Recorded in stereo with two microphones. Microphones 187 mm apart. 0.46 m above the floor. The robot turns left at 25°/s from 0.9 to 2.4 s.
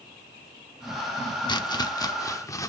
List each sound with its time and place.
1.5 s chopping: 20° left (ahead or behind), 0.8 m; by 2.7 s 15° left (ahead or behind), 0.8 m